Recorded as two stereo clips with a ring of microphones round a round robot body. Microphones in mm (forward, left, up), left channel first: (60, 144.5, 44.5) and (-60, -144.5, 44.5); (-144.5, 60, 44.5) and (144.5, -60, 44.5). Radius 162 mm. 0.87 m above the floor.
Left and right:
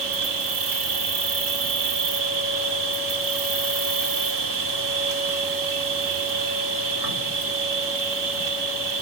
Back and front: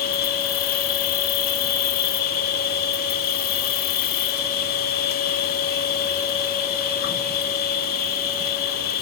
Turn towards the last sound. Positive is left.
turn(degrees=-140)